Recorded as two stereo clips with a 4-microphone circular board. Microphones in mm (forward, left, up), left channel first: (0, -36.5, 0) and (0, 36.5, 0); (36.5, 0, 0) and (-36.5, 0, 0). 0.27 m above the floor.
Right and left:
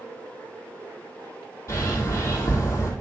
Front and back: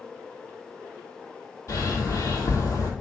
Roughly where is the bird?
Ahead right.